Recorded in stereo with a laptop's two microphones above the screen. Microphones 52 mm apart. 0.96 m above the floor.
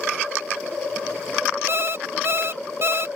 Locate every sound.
1.7 s an alarm clock: 55° right (ahead or behind)